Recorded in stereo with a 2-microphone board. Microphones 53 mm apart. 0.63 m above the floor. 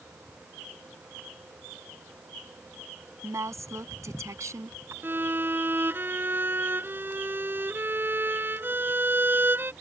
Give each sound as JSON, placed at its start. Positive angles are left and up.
{"t": 3.2, "sound": "a woman speaking", "side_deg": -80}
{"t": 5.0, "sound": "a violin", "side_deg": -45}